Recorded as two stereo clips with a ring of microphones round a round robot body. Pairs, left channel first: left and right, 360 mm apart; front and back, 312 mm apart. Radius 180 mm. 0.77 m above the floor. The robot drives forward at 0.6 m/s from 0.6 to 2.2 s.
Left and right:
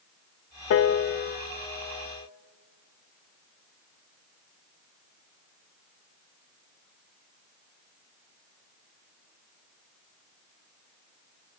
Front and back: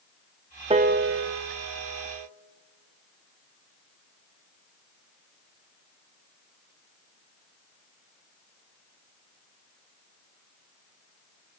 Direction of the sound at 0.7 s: 115° left.